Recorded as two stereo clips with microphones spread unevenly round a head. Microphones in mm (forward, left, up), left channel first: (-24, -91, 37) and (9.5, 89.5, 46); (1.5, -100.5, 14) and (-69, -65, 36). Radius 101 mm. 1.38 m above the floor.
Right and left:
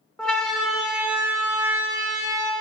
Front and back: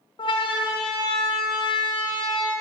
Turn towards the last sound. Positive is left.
turn(degrees=10)